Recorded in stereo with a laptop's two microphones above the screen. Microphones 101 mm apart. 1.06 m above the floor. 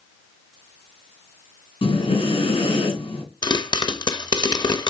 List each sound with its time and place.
1.8 s breathing: 65° left (ahead or behind), 2.5 m
3.4 s a pop: 40° left (ahead or behind), 0.6 m